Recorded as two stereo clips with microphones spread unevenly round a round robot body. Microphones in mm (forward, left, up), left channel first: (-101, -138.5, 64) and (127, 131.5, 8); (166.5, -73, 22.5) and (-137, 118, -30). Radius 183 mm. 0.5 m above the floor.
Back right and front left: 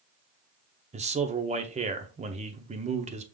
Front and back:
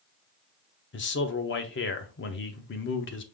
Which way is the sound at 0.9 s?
15° left.